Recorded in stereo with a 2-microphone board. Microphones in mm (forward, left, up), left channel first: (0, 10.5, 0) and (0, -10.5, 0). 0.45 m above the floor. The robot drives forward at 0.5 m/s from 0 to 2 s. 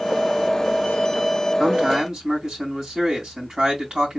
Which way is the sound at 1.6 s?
45° right (ahead or behind).